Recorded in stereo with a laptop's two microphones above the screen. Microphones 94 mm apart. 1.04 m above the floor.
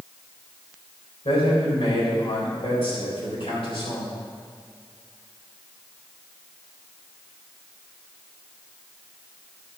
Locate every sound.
1.2 s a man speaking: 70° left (ahead or behind), 4 m